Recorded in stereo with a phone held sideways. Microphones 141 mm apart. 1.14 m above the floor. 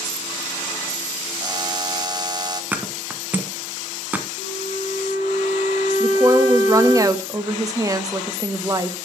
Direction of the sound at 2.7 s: 10° right (ahead or behind).